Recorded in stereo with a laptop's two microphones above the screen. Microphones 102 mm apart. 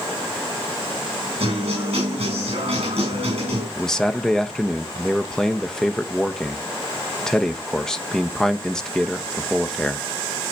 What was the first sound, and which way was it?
A guitar, 75° right (ahead or behind).